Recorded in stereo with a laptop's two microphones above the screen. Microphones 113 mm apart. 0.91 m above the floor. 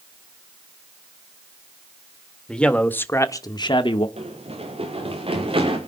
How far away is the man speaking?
About 1.8 m.